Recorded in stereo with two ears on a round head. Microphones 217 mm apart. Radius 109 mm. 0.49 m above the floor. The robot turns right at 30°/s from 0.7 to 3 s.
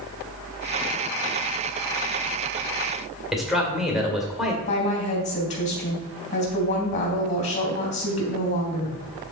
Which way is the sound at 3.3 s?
Centre (ahead or behind).